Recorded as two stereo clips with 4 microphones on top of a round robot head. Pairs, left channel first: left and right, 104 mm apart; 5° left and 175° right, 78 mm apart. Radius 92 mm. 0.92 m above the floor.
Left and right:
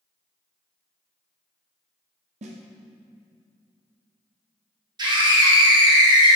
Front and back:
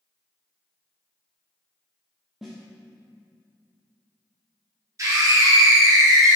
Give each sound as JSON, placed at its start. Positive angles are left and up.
{"t": 2.4, "sound": "a snare drum", "azimuth_deg": -90, "distance_m": 0.7}
{"t": 5.0, "sound": "a scream", "azimuth_deg": -130, "distance_m": 1.7}